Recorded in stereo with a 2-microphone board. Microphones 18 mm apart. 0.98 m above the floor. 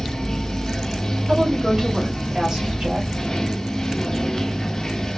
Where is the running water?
35° left (ahead or behind), 0.7 m.